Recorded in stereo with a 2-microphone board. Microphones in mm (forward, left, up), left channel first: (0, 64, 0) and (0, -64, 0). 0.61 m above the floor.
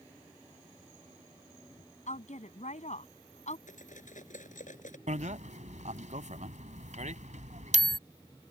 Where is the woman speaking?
65° left (ahead or behind).